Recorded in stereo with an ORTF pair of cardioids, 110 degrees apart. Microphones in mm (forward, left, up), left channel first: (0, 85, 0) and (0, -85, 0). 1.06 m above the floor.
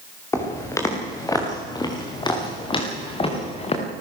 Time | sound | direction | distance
0.3 | footsteps | 15° left | 6.5 m